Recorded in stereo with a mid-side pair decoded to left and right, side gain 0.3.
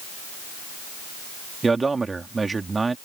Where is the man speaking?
40° right.